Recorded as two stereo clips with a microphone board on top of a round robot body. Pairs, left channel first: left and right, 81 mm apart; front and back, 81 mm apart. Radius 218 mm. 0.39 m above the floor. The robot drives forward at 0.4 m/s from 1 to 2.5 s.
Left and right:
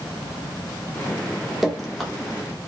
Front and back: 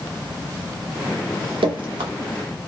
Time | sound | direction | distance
1.6 | dripping | straight behind | 0.6 m